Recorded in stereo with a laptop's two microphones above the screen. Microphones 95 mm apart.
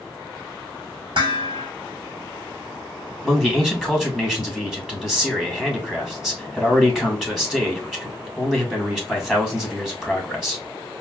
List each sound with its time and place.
1.1 s dishes clattering: 60° right (ahead or behind), 1.7 m
3.2 s a man speaking: 5° right (ahead or behind), 1.3 m